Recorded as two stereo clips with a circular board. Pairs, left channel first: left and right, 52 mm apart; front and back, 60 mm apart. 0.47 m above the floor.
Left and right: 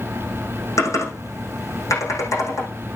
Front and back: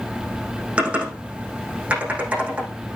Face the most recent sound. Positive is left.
turn(degrees=110)